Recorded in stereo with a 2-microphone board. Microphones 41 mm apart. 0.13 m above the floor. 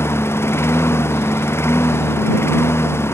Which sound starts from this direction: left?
A lawn mower, at 0.0 s.